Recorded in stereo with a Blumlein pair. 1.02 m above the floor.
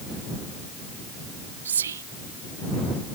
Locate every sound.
1.6 s whispering: 65° right